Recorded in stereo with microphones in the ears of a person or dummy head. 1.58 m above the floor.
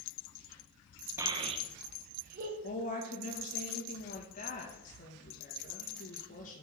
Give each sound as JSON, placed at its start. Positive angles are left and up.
{"t": 1.2, "sound": "a child speaking", "side_deg": -15, "distance_m": 0.9}
{"t": 2.6, "sound": "a woman speaking", "side_deg": 50, "distance_m": 2.0}